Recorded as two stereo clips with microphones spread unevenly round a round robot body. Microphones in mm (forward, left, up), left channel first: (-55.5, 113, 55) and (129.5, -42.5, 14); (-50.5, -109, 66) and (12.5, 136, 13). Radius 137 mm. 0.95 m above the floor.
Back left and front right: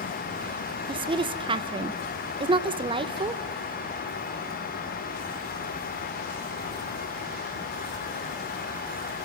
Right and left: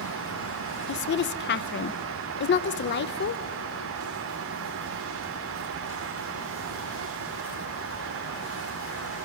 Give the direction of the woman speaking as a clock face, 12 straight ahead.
2 o'clock.